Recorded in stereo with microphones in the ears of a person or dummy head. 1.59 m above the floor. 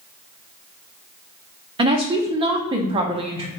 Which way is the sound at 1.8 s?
25° right (ahead or behind).